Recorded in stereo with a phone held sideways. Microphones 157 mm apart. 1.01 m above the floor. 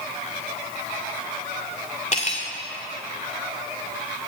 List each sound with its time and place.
2.1 s cutlery clinking: 50° left (ahead or behind), 1.8 m